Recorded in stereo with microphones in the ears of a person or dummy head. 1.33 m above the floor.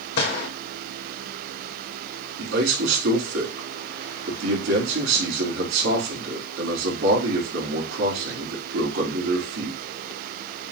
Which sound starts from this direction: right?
A man speaking, at 2.4 s.